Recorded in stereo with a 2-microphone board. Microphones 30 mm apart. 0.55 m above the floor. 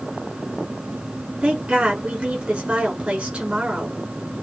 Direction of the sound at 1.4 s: 45° right (ahead or behind).